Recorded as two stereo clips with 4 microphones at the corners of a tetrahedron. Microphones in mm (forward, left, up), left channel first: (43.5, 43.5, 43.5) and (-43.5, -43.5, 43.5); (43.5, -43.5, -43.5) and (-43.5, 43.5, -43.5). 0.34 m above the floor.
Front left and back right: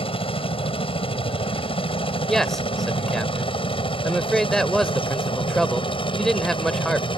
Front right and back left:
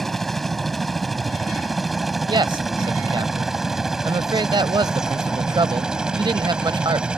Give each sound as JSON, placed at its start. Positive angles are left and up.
{"t": 0.0, "sound": "a helicopter", "azimuth_deg": 45}
{"t": 2.3, "sound": "a man speaking", "azimuth_deg": 130}